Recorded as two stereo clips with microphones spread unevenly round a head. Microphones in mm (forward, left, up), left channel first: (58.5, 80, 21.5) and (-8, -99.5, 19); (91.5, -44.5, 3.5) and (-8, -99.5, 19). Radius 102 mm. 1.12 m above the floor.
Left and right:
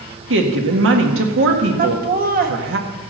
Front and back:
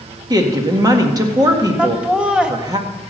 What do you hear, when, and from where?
0.3 s a woman speaking: 90° right, 1.7 m
1.8 s laughter: 65° right, 1.5 m